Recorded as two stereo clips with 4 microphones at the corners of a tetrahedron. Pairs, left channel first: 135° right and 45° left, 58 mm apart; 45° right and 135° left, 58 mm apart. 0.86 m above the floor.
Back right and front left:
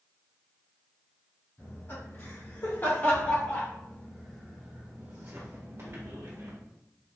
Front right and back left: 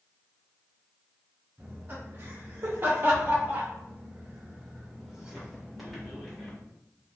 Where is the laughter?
175° right, 2.0 m; by 6.6 s 35° left, 1.4 m.